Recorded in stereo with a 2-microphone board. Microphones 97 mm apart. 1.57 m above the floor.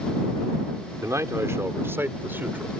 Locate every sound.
1.0 s a man speaking: 30° right (ahead or behind); by 2.7 s 20° right (ahead or behind)